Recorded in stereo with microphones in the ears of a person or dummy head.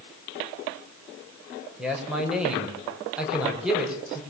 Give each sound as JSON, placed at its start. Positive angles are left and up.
{"t": 1.8, "sound": "a man speaking", "side_deg": -5, "distance_m": 5.5}